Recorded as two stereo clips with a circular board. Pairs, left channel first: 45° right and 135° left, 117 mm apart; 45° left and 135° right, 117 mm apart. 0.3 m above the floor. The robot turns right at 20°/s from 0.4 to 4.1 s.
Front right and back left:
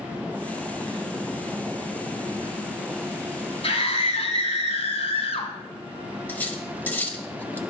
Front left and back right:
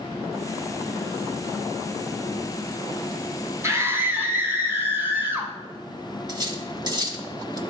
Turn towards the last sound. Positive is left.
turn(degrees=-110)